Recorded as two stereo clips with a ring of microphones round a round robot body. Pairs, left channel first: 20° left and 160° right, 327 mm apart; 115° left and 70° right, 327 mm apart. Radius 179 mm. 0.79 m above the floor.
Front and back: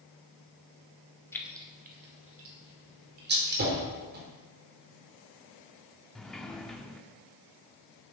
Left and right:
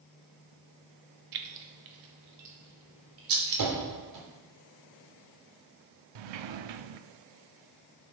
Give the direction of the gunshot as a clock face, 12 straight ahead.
3 o'clock.